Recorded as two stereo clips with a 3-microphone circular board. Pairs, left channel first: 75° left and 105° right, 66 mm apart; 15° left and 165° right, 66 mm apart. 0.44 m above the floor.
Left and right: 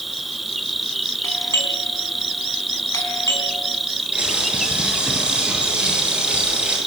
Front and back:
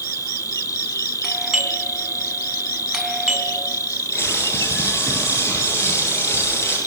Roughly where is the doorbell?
Left.